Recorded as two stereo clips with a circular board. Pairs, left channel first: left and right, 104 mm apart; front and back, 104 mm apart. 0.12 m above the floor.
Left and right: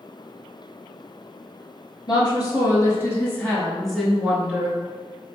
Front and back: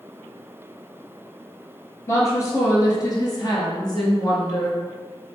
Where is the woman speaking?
50° left, 1.9 m; by 4.8 s 30° right, 1.6 m.